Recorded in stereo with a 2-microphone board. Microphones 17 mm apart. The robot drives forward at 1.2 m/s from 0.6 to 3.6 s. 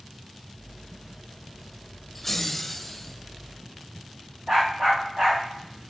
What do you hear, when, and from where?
2.1 s laughter: 15° left (ahead or behind), 1.1 m; by 3.1 s 5° left (ahead or behind), 2 m
4.5 s a dog barking: 40° right (ahead or behind), 6.5 m